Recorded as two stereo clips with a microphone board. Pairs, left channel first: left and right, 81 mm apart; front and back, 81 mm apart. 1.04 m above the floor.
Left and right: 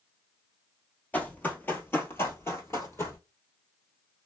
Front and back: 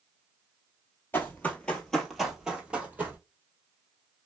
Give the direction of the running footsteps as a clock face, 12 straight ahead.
11 o'clock.